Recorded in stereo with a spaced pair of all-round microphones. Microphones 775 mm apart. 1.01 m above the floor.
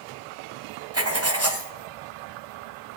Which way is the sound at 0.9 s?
20° right (ahead or behind).